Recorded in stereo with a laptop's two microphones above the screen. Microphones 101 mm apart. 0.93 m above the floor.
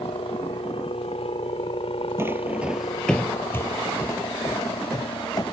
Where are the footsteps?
25° right (ahead or behind); by 5.5 s 35° left (ahead or behind).